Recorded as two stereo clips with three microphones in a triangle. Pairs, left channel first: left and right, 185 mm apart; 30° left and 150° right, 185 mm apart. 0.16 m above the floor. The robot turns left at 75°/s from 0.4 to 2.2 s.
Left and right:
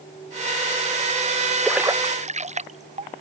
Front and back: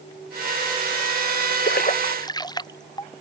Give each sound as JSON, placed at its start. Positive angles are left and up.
{"t": 1.6, "sound": "a splash", "azimuth_deg": 5}